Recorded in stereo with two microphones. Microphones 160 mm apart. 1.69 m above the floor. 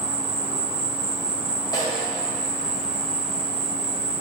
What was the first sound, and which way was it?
An insect, 35° right (ahead or behind).